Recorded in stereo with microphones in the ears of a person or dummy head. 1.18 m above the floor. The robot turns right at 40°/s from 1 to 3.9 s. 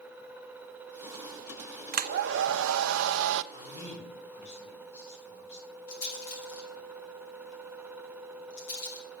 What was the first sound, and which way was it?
A hair dryer, 135° right.